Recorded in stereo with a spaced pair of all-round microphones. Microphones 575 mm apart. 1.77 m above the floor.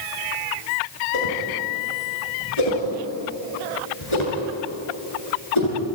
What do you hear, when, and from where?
1.1 s a whoosh: 55° left (ahead or behind), 7.5 m